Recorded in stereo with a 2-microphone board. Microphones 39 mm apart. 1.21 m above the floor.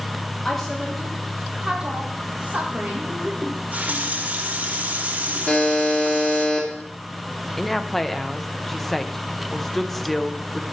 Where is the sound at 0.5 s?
10° left (ahead or behind), 1.1 m; by 3.3 s 45° right (ahead or behind), 1.9 m.